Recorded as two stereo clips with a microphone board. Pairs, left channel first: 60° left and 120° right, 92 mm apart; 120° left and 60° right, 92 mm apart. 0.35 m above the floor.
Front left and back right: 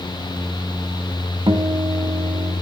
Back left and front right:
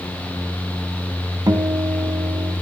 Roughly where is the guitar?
Right.